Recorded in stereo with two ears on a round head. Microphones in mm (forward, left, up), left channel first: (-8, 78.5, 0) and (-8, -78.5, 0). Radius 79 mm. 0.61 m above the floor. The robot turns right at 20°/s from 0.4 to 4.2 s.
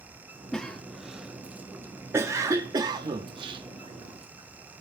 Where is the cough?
5° left (ahead or behind), 0.6 m; by 4.8 s 35° right (ahead or behind), 0.6 m.